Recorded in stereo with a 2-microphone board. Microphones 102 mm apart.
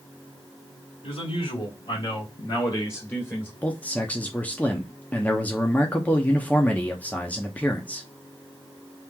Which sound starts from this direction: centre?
A man speaking, at 3.6 s.